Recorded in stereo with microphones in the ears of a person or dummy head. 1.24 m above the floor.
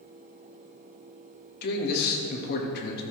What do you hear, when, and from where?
1.6 s a man speaking: 55° left (ahead or behind), 1.5 m